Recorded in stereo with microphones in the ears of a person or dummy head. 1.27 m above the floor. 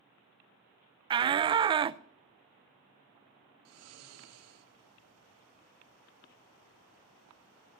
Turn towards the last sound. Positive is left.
turn(degrees=-90)